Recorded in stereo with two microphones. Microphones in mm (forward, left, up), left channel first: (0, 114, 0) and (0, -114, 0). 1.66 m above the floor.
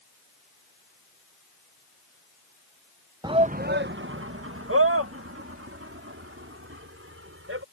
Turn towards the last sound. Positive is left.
turn(degrees=-70)  # may be behind; listen again after turning